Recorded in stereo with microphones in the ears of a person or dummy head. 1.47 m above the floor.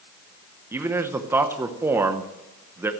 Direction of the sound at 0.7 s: 10° right (ahead or behind).